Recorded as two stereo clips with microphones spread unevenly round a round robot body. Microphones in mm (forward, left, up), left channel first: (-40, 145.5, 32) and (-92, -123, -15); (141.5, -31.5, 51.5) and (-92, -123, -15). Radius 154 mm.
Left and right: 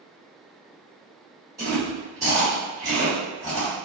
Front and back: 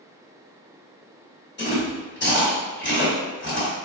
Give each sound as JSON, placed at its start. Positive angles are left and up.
{"t": 1.6, "sound": "chewing", "azimuth_deg": -30, "distance_m": 1.9}